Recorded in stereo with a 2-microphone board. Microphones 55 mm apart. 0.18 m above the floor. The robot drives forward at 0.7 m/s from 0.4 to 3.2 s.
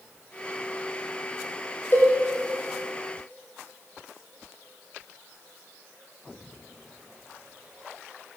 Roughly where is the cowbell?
Left.